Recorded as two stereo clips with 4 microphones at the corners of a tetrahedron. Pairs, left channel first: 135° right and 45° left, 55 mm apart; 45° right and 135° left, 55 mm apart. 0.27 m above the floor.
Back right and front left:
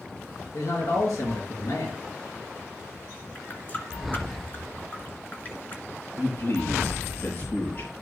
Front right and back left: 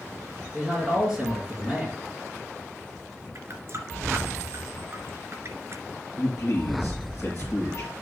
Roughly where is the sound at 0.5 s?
Behind right.